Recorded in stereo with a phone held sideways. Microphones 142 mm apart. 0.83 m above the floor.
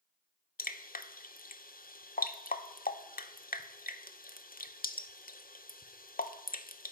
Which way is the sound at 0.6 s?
80° left.